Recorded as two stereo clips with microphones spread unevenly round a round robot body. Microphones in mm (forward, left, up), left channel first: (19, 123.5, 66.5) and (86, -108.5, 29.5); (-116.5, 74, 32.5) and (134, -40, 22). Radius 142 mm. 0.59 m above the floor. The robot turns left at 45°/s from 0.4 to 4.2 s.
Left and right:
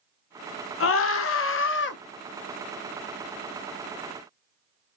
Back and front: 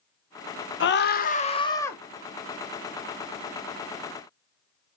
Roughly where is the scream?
Behind left.